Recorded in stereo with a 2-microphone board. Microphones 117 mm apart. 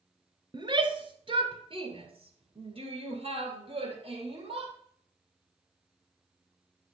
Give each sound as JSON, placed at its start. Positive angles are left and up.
{"t": 0.5, "sound": "a shout", "side_deg": -40, "distance_m": 1.4}